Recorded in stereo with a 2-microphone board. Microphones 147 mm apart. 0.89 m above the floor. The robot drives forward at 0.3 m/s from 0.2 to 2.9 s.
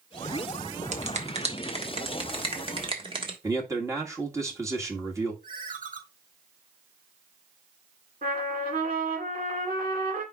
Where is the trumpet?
75° right (ahead or behind), 2.5 m.